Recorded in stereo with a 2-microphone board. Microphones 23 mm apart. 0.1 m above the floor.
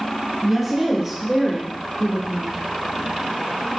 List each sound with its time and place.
0.4 s a woman speaking: 10° right (ahead or behind), 1.7 m; by 2.6 s 35° left (ahead or behind), 1.6 m